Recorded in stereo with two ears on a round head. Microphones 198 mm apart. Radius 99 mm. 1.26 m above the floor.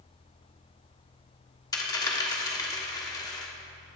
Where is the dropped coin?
20° left (ahead or behind), 1.2 m.